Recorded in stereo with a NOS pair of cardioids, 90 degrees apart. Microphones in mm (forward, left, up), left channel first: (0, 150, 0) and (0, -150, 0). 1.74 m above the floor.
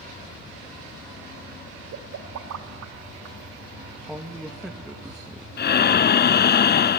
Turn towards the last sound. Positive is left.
turn(degrees=35)